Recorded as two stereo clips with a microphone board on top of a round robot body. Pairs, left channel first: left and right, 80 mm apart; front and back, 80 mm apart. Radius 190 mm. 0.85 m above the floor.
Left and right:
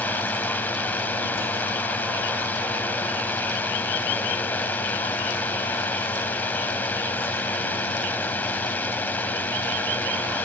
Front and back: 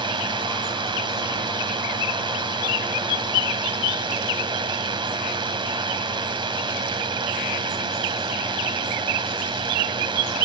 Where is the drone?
160° left.